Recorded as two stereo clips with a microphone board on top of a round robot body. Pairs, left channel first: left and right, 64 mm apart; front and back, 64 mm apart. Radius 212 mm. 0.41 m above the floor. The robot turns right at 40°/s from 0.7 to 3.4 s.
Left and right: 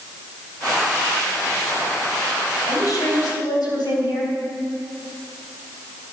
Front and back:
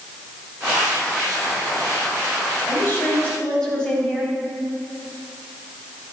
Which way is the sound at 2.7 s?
50° left.